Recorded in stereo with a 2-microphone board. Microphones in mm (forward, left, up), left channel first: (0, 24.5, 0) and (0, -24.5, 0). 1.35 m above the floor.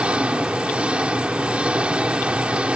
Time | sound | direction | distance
0.0 | an engine running | 25° right (ahead or behind) | ?